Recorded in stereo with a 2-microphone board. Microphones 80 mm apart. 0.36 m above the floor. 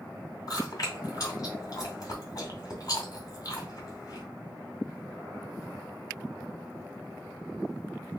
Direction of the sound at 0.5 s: 50° left (ahead or behind).